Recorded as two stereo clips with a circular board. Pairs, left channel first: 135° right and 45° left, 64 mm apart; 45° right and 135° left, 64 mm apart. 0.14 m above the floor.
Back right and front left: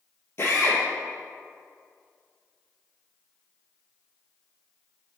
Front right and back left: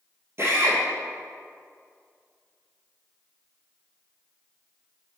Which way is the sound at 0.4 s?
Straight behind.